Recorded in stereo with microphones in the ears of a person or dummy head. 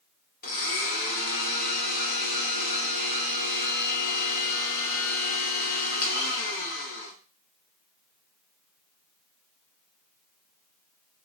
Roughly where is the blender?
Left.